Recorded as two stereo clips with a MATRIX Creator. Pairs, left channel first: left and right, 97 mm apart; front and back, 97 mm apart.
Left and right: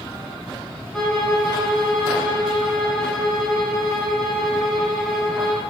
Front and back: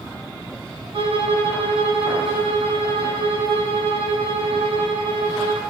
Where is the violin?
175° left, 0.8 m.